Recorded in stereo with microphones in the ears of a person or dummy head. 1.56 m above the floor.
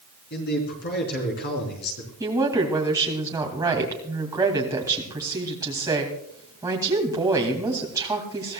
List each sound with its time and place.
0.3 s a man speaking: 50° left (ahead or behind), 4 m
2.2 s a woman speaking: 15° right (ahead or behind), 2.5 m